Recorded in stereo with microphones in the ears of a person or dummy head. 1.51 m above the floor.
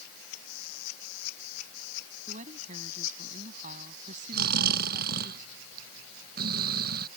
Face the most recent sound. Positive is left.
turn(degrees=-60)  # may be behind; listen again after turning